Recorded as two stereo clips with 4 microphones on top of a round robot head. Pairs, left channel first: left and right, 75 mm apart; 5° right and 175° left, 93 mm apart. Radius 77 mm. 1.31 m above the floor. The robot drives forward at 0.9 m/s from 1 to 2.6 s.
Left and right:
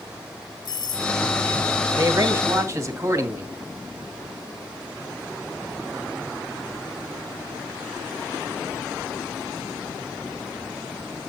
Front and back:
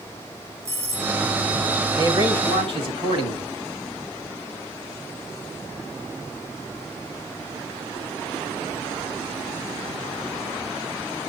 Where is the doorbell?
115° left, 5 m; by 1.1 s 120° left, 5 m.